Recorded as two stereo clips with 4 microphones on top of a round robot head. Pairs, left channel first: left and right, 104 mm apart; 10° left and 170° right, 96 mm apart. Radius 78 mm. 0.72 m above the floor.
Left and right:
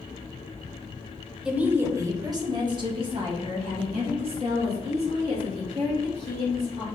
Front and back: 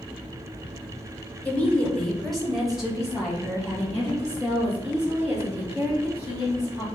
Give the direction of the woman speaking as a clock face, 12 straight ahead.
1 o'clock.